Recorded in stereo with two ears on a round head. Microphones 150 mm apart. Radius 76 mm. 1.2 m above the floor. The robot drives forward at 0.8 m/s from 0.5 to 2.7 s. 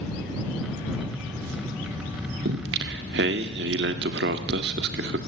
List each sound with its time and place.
2.5 s singing: 65° right (ahead or behind), 1.7 m; by 5.2 s 70° right (ahead or behind), 1.6 m